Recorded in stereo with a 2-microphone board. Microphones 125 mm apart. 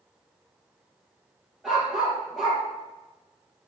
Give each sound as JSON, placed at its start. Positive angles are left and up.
{"t": 1.6, "sound": "a dog barking", "side_deg": -5, "distance_m": 4.0}